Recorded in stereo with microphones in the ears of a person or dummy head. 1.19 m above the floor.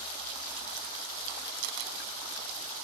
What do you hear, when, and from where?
1.6 s a camera shutter: 70° right (ahead or behind)